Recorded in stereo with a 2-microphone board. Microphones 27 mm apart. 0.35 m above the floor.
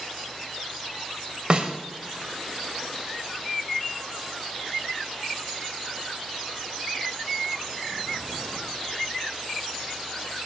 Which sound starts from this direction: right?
A snare drum, at 1.5 s.